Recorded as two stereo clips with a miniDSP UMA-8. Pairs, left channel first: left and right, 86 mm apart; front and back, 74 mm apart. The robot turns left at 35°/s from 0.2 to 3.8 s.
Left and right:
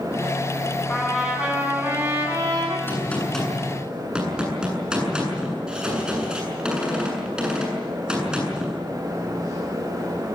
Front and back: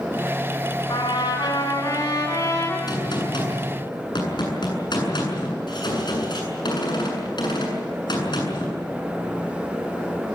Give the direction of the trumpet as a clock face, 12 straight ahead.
12 o'clock.